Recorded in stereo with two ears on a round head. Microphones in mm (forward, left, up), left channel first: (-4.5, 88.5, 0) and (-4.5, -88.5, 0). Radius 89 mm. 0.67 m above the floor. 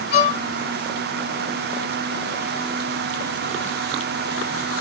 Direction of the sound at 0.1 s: 50° left (ahead or behind).